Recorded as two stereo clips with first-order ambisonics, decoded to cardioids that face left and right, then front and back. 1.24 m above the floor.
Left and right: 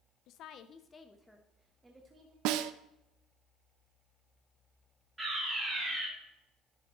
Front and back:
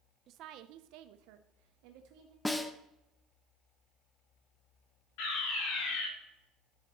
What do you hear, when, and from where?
0.3 s a woman speaking: 125° left, 0.6 m; by 2.4 s 160° right, 1.1 m
2.5 s a snare drum: 80° right, 0.6 m
5.2 s a fire alarm: 5° right, 3.5 m